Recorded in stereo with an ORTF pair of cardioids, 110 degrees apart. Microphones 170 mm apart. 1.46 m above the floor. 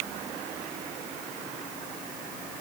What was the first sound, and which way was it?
Only background noise.